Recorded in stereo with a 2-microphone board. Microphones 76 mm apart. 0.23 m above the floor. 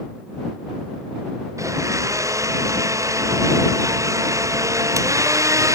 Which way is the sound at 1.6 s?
40° right (ahead or behind).